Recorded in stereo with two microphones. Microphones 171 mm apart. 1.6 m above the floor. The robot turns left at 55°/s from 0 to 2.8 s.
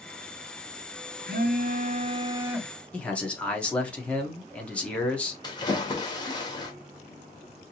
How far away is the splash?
About 1.4 m.